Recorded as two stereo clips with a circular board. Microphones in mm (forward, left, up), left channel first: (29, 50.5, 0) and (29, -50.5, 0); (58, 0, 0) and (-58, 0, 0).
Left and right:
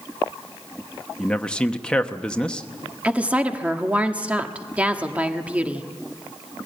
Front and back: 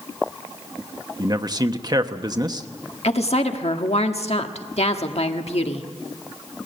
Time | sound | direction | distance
1.2 | a man speaking | 165° left | 1.0 m
3.0 | a woman speaking | 15° right | 1.4 m